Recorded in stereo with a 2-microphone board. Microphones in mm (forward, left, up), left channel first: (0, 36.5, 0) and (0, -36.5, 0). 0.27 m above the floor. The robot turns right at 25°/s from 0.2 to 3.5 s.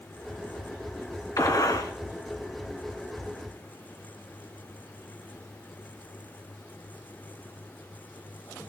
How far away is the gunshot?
About 2 m.